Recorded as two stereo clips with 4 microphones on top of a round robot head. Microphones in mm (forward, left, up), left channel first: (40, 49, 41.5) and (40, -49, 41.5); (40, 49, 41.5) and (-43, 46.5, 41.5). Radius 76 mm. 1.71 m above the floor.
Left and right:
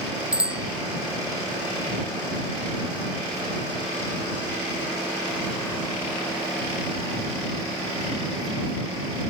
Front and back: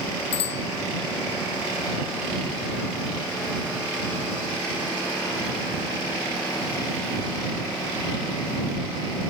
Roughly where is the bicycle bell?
Ahead.